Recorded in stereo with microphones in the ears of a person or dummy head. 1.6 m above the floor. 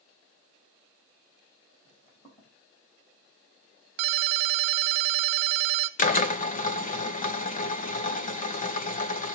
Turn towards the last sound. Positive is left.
turn(degrees=40)  # may be behind; listen again after turning